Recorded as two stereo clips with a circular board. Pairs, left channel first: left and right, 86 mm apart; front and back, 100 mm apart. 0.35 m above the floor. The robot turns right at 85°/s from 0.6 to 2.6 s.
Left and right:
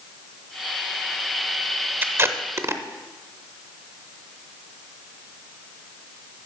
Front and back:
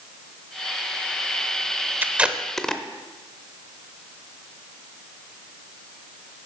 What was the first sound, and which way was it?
Tape being pulled, 130° right.